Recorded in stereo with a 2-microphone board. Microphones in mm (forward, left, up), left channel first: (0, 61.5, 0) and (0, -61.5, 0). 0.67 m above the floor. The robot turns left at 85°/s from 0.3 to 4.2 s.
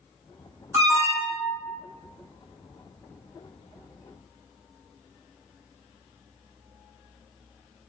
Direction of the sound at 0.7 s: 25° right.